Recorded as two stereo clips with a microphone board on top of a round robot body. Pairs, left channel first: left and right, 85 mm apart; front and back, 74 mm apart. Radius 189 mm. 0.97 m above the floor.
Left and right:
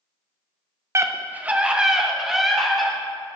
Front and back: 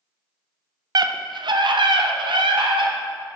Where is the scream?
150° right, 0.7 m; by 2.9 s straight behind, 1.9 m.